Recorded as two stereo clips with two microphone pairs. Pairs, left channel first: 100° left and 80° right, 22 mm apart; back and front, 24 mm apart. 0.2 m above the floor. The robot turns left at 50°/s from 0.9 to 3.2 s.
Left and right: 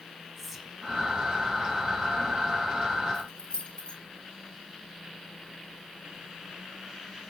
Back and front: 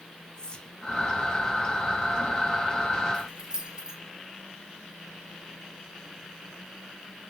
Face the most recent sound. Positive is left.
turn(degrees=60)